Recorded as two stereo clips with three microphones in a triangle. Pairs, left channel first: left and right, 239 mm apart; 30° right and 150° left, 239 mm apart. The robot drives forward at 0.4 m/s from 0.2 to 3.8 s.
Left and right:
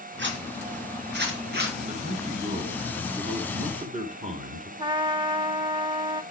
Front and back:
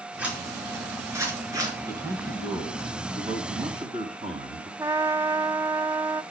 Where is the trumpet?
140° right, 0.5 m.